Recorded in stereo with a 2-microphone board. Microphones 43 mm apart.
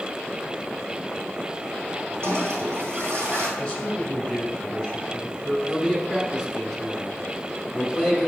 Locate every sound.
2.2 s a toilet flushing: 75° right (ahead or behind), 2.5 m
3.6 s a man speaking: 15° left (ahead or behind), 1.8 m
5.7 s a man speaking: centre (ahead or behind), 1.5 m